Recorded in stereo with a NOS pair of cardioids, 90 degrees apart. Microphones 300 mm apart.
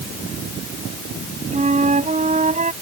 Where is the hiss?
I don't hear a hiss.